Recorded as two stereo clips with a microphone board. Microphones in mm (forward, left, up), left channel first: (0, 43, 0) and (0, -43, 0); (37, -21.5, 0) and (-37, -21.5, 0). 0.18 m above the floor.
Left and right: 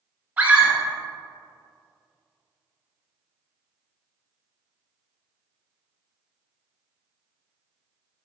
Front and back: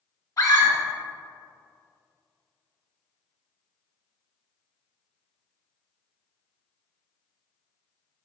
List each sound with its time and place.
0.4 s a scream: 25° right, 1.6 m